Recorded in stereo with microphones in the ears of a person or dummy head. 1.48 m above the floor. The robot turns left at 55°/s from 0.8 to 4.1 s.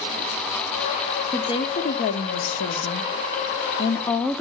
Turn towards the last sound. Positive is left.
turn(degrees=10)